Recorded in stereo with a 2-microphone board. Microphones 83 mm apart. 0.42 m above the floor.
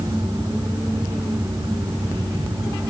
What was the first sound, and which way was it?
Only background noise.